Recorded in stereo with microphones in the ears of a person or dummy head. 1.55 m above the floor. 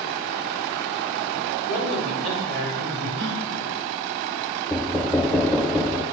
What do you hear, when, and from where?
1.7 s a man speaking: 80° right, 5 m
3.2 s a gasp: 65° right (ahead or behind), 1.1 m
4.7 s knocking: centre (ahead or behind), 0.5 m